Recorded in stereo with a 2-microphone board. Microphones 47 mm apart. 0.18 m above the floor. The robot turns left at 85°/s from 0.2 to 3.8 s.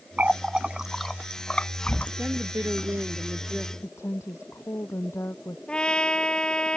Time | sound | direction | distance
0.2 | a running tap | 35° right (ahead or behind) | ?
2.2 | a woman speaking | 45° right | ?
3.8 | a woman speaking | 75° left (ahead or behind) | ?
5.7 | a trumpet | 20° left (ahead or behind) | ?